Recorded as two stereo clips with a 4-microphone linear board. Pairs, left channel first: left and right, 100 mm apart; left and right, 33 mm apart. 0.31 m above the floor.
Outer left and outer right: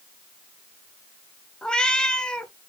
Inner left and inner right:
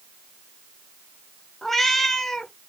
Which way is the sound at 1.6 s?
10° left (ahead or behind).